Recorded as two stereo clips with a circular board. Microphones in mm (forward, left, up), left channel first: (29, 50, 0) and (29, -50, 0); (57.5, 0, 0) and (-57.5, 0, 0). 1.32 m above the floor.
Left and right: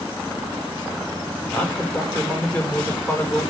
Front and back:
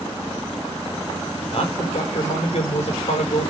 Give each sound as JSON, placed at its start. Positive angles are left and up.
{"t": 1.5, "sound": "a man speaking", "azimuth_deg": 25, "distance_m": 4.5}